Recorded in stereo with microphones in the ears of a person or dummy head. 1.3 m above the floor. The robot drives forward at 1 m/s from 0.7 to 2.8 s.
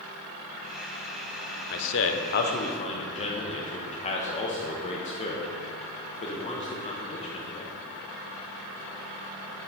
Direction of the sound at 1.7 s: 50° left (ahead or behind).